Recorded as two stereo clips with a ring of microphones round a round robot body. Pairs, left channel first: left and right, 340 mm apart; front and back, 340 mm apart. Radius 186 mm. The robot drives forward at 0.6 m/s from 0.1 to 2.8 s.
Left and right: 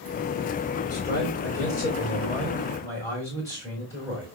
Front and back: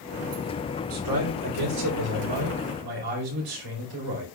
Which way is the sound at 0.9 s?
170° left.